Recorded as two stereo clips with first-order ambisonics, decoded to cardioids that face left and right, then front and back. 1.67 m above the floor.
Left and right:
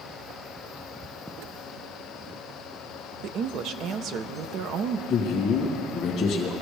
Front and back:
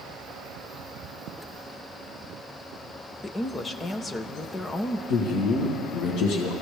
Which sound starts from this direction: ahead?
A man speaking, at 5.1 s.